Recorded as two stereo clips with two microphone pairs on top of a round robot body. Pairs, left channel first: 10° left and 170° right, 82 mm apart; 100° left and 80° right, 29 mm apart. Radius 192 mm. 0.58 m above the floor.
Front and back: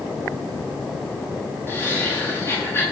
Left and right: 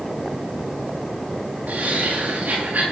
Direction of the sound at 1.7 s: 55° right.